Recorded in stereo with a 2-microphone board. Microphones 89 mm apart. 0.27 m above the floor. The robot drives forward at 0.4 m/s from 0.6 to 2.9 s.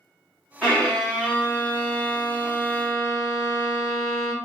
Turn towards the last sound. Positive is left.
turn(degrees=10)  # may be behind; listen again after turning